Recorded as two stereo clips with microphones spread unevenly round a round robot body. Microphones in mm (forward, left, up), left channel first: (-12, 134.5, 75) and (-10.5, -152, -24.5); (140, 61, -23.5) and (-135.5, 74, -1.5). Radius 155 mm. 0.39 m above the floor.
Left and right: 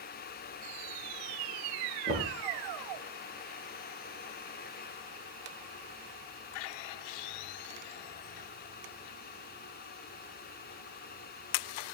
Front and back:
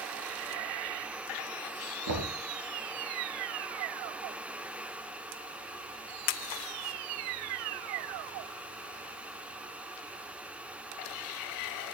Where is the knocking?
160° left, 4 m.